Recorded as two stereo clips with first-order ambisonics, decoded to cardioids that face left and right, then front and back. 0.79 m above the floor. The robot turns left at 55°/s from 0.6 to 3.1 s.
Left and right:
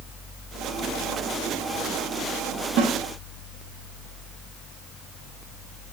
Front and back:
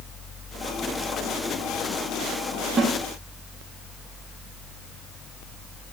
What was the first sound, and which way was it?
A snare drum, 115° right.